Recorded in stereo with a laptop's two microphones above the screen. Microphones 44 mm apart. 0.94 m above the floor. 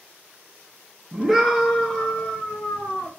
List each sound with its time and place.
1.1 s a scream: 15° right (ahead or behind), 0.6 m; by 3.1 s 55° left (ahead or behind), 1.1 m